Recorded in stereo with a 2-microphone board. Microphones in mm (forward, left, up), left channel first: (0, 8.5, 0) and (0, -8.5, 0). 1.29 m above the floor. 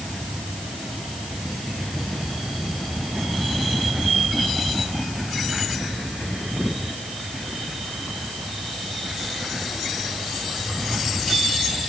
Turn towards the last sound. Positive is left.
No sound to turn to.